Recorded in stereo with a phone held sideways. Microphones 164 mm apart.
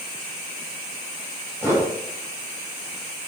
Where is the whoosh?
15° right (ahead or behind), 8.5 m.